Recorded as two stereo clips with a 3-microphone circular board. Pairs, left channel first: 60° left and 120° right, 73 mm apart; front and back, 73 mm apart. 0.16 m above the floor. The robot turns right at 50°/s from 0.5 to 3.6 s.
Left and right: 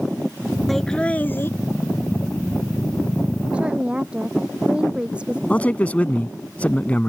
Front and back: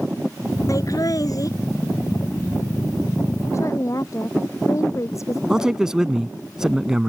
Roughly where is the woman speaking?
Ahead right.